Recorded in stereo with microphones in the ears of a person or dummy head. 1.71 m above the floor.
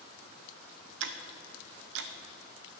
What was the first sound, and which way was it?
Ticking, 60° right (ahead or behind).